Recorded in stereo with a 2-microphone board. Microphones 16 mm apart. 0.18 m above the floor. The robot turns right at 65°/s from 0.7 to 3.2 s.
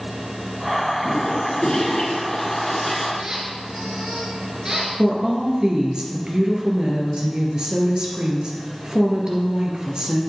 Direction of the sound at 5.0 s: 55° right (ahead or behind).